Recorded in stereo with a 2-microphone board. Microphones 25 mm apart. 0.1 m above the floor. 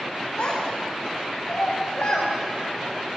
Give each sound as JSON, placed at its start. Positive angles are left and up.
{"t": 0.4, "sound": "a child speaking", "side_deg": 80, "distance_m": 8.5}